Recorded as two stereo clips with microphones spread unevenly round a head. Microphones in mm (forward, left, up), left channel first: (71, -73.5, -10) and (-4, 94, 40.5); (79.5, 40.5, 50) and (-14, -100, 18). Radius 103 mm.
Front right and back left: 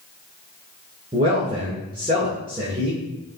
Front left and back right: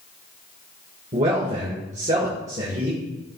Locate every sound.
1.1 s a man speaking: 175° right, 2 m